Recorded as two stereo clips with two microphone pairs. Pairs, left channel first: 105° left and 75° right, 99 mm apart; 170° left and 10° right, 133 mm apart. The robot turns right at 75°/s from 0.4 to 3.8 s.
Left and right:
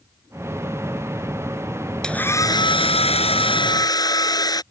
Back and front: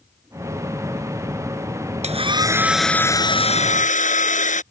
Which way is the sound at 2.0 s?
25° left.